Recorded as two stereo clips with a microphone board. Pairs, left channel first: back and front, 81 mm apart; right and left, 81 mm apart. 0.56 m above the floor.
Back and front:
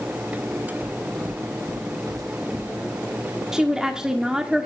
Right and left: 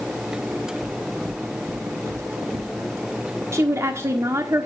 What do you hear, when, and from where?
0.8 s footsteps: 25° left, 3.5 m; by 2.7 s 40° left, 4 m
3.5 s a woman speaking: 75° left, 1.5 m